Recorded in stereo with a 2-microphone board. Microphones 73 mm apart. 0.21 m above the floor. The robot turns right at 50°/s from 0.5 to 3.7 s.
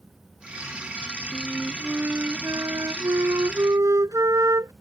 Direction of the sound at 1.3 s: Straight behind.